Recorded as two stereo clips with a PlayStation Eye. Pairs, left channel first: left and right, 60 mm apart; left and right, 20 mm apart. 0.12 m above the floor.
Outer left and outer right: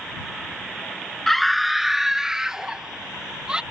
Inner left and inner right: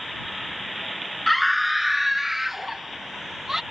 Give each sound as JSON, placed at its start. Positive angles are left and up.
{"t": 1.3, "sound": "a scream", "side_deg": 5}